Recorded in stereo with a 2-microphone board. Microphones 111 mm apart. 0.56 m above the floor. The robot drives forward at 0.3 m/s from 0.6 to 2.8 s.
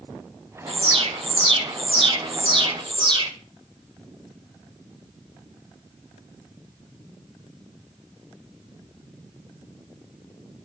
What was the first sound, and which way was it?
An alarm, 65° right (ahead or behind).